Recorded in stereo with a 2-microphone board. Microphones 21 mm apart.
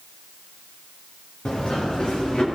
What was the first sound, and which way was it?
Running footsteps, 55° left (ahead or behind).